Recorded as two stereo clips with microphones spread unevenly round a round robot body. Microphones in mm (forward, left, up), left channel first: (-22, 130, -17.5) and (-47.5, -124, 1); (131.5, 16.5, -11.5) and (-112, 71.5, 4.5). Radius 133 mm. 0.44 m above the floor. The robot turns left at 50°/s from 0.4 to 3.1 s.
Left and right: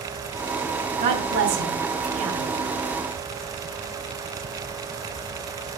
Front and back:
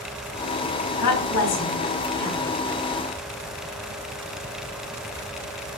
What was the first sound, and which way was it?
A woman speaking, 30° right.